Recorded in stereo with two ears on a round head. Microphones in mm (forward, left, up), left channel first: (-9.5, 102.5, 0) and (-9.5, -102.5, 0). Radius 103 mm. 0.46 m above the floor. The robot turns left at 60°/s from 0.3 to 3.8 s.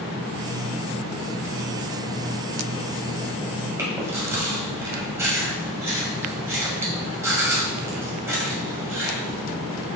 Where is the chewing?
15° right (ahead or behind), 2.5 m.